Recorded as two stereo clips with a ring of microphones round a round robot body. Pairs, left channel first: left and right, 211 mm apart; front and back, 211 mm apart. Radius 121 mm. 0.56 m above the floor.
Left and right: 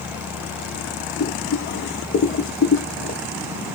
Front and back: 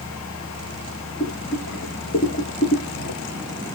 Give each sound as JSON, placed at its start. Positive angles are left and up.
{"t": 1.2, "sound": "boiling", "azimuth_deg": 50, "distance_m": 1.0}